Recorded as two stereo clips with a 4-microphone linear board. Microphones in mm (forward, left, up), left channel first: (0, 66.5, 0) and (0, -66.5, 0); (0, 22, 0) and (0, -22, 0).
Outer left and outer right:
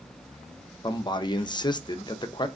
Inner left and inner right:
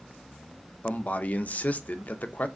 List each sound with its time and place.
0.8 s a man speaking: 35° left (ahead or behind), 0.6 m